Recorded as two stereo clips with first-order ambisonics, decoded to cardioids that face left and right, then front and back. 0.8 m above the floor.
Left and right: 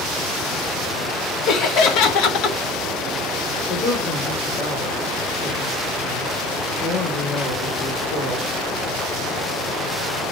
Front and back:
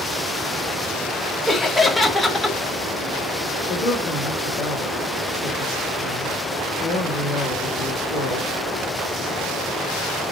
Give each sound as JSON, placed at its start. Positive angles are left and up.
{"t": 1.5, "sound": "laughter", "azimuth_deg": 85, "distance_m": 0.9}
{"t": 3.7, "sound": "a woman speaking", "azimuth_deg": 50, "distance_m": 2.5}